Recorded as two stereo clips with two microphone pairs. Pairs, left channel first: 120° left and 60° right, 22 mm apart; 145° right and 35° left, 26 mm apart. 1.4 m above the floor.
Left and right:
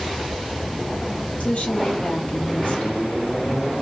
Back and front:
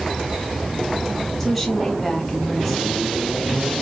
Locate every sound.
1.4 s a woman speaking: 135° left, 1.6 m